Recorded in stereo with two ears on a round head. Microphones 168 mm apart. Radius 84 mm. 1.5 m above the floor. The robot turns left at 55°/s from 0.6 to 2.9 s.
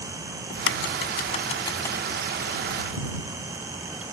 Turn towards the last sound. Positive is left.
turn(degrees=-45)  # may be behind; listen again after turning